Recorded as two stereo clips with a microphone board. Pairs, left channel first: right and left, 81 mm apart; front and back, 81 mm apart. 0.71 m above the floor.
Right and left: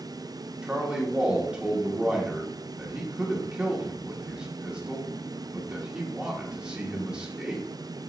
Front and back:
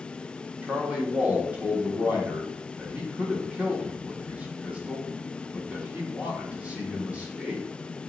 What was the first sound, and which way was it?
A man speaking, 145° left.